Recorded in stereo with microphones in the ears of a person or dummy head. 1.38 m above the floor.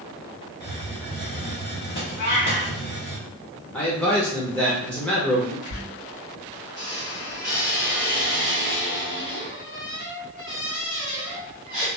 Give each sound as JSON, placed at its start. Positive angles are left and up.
{"t": 0.6, "sound": "a hiss", "side_deg": 35, "distance_m": 1.1}
{"t": 2.2, "sound": "a cat meowing", "side_deg": 45, "distance_m": 0.9}
{"t": 3.7, "sound": "a man speaking", "side_deg": 10, "distance_m": 0.7}
{"t": 5.7, "sound": "a squeak", "side_deg": -35, "distance_m": 1.9}